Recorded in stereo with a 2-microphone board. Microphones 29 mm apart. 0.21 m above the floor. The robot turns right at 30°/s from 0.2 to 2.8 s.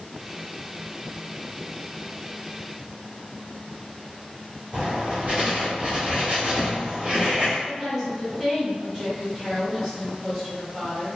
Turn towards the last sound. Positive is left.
turn(degrees=-15)  # may be behind; listen again after turning